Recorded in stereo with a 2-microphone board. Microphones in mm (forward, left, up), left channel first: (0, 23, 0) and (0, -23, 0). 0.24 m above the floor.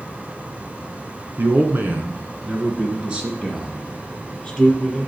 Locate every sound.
1.4 s a man speaking: 50° right (ahead or behind), 2 m; by 5.1 s centre (ahead or behind), 4.5 m